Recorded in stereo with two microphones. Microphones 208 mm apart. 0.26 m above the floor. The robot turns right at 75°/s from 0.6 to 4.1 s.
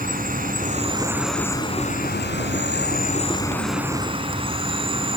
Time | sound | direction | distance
0.0 | an insect | 55° right | 1.8 m